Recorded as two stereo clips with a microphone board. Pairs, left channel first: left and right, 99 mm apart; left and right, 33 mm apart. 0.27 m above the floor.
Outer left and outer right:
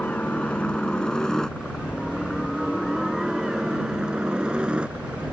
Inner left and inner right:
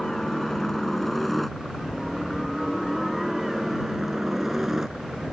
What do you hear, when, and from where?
0.0 s a helicopter: 15° left (ahead or behind); by 5.3 s 15° right (ahead or behind)